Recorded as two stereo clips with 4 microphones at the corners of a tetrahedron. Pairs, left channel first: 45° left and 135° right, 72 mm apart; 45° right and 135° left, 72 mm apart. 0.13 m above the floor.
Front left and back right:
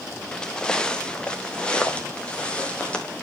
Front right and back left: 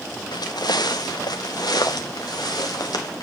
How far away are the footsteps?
About 0.9 m.